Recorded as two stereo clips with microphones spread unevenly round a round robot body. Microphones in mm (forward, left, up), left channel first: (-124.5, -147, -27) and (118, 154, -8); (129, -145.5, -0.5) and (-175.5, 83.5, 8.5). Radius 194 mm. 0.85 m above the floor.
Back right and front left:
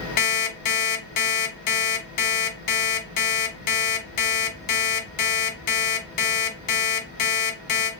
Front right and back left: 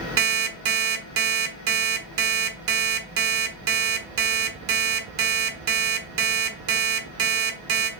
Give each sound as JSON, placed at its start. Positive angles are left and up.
{"t": 0.2, "sound": "an alarm clock", "azimuth_deg": 180, "distance_m": 1.2}